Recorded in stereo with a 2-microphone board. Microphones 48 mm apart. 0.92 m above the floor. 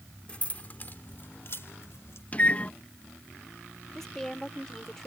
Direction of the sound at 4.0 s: 10° left (ahead or behind).